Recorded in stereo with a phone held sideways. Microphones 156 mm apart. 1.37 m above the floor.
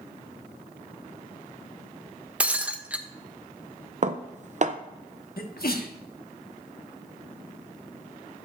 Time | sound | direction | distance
2.4 | breaking glass | 10° right (ahead or behind) | 0.6 m
4.0 | dishes clattering | 50° right (ahead or behind) | 0.6 m
5.4 | a sneeze | 75° left (ahead or behind) | 1.4 m